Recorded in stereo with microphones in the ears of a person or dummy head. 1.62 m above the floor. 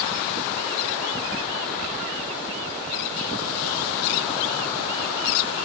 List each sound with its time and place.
Only background noise.